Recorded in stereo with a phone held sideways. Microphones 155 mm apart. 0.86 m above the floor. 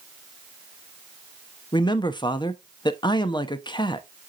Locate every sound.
1.7 s a man speaking: 30° left (ahead or behind), 0.7 m